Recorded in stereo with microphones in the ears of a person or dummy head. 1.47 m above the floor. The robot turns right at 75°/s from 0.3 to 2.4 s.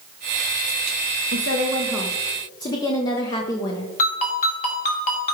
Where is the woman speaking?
60° right, 0.9 m; by 3.9 s 20° left, 0.9 m.